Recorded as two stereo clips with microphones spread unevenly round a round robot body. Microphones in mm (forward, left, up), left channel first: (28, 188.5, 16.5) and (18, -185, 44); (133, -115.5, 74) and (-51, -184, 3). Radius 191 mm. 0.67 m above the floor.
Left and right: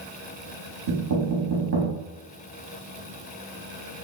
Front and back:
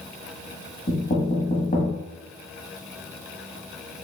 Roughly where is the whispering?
I don't hear whispering.